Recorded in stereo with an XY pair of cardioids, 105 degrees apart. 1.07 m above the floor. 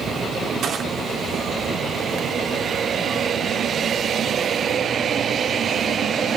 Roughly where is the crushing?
Ahead right.